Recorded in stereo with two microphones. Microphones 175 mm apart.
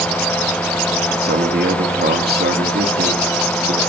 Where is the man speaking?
65° right (ahead or behind), 1.9 m.